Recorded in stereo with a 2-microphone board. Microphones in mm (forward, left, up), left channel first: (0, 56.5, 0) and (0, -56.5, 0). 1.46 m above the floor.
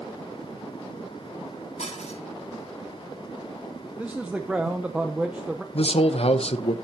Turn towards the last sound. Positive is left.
turn(degrees=60)  # may be behind; listen again after turning